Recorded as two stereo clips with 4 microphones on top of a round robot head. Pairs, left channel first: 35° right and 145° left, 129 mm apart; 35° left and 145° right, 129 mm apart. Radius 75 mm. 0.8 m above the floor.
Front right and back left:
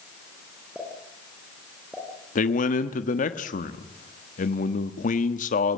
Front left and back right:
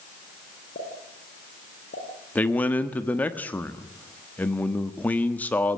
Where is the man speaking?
40° right, 1.4 m.